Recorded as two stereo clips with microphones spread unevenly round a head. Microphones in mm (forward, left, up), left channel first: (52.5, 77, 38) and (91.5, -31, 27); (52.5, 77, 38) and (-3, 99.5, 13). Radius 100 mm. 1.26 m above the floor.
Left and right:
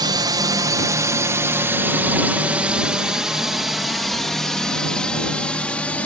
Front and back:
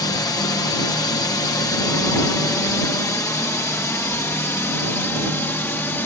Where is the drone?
45° right; by 6.1 s 30° left.